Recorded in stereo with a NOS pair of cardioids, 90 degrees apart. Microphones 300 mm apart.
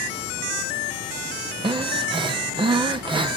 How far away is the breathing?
About 0.8 m.